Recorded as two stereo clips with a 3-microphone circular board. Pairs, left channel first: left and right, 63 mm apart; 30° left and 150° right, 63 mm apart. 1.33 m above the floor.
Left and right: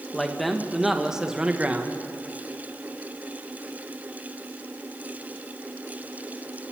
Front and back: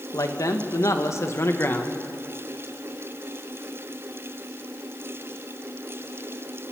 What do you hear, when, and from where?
0.1 s a man speaking: 5° left, 1.9 m; by 2.0 s 25° right, 1.6 m